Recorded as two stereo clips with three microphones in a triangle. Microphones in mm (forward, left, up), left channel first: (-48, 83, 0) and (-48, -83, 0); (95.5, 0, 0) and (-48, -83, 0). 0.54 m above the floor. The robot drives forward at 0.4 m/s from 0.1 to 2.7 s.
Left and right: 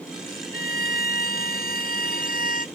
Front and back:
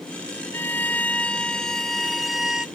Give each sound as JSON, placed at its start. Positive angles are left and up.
{"t": 0.5, "sound": "a violin", "azimuth_deg": 105}